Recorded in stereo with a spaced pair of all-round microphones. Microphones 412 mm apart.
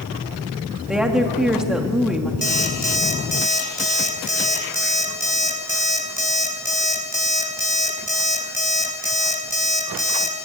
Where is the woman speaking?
Centre (ahead or behind), 2.5 m.